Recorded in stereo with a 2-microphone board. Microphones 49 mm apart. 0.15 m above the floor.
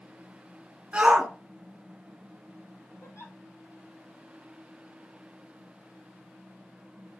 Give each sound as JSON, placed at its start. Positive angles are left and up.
{"t": 0.9, "sound": "a shout", "side_deg": -20, "distance_m": 1.2}
{"t": 3.0, "sound": "a giggle", "side_deg": 70, "distance_m": 1.1}